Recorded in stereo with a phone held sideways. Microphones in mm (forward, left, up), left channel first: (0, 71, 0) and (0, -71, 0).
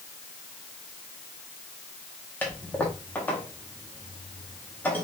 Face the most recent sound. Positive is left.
turn(degrees=15)  # may be behind; listen again after turning